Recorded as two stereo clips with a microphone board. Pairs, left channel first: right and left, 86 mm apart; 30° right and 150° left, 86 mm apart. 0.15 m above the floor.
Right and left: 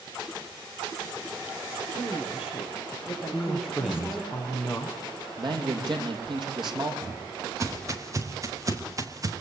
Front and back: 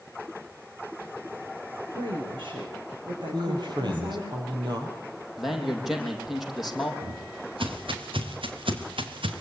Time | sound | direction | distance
1.9 | a woman speaking | 170° left | 9.5 m
3.3 | a man speaking | 175° left | 6 m
5.4 | a man speaking | 60° left | 5.5 m
7.0 | footsteps | 145° left | 5 m